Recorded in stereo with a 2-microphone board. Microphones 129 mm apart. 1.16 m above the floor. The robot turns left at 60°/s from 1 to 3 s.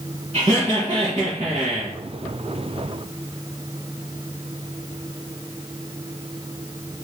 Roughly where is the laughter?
Ahead right.